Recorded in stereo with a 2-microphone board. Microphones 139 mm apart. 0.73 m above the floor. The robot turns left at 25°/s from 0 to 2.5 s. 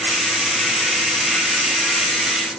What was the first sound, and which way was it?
Only background noise.